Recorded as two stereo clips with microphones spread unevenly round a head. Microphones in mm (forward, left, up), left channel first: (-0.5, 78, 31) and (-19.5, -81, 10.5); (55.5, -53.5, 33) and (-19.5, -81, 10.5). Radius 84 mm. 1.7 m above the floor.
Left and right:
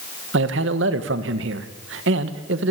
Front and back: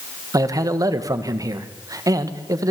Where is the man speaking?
110° right, 1.6 m.